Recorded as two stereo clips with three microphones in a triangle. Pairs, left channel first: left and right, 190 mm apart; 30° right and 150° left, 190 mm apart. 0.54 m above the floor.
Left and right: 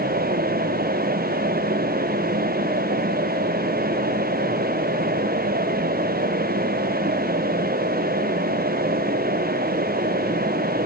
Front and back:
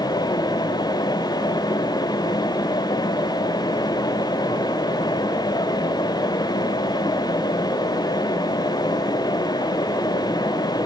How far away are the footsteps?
No footsteps in this recording.